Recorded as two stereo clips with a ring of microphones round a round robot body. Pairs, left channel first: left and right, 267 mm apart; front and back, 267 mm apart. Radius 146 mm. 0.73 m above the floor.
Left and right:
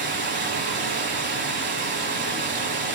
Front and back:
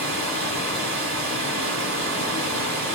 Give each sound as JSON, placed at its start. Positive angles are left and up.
{"t": 0.0, "sound": "running water", "azimuth_deg": -135, "distance_m": 1.1}